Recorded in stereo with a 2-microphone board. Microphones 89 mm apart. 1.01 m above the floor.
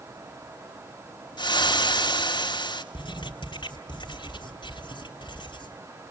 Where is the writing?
70° left (ahead or behind), 3.5 m.